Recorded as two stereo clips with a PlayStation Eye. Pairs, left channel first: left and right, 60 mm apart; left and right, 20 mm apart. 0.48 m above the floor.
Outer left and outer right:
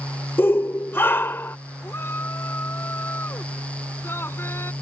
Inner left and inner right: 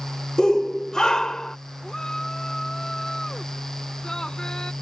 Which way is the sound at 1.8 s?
40° left (ahead or behind).